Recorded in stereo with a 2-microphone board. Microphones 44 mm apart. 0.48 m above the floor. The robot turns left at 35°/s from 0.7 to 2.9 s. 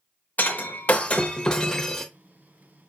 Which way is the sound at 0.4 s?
50° left.